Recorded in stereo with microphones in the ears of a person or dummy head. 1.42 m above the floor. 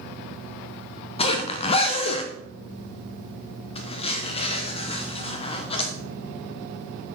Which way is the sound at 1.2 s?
30° left (ahead or behind).